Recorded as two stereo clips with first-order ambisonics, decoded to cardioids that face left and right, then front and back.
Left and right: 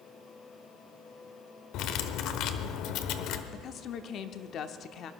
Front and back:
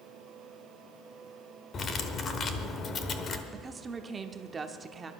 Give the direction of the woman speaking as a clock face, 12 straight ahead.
8 o'clock.